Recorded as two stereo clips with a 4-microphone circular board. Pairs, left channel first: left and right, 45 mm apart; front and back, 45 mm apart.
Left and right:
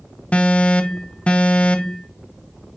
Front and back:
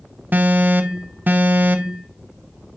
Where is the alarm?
145° left, 0.7 m.